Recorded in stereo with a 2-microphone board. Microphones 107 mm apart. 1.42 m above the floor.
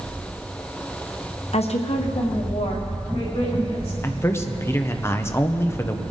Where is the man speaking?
25° left (ahead or behind), 0.8 m.